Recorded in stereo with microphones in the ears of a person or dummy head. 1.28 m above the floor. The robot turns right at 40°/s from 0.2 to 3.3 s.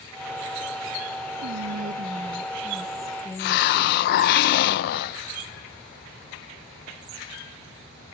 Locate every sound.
1.4 s whispering: 60° right, 0.9 m; by 4.2 s 15° left, 0.9 m
3.4 s a hiss: 60° left (ahead or behind), 0.5 m